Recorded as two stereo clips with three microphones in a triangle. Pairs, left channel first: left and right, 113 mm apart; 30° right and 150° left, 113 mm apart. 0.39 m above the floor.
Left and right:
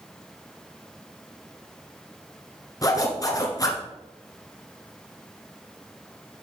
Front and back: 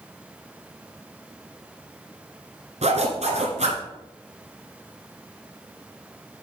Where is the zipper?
145° left, 1.4 m.